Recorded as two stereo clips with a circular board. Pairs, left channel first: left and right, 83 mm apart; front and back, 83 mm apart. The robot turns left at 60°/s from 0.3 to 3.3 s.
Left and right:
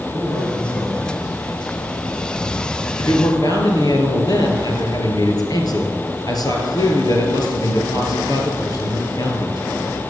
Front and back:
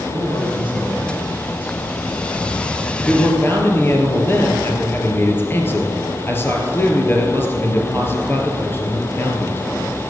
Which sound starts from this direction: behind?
A man speaking, at 0.1 s.